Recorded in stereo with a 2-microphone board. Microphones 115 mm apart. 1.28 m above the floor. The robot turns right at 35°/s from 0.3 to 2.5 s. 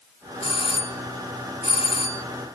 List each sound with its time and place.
0.4 s a doorbell: 55° left; by 2.2 s 120° left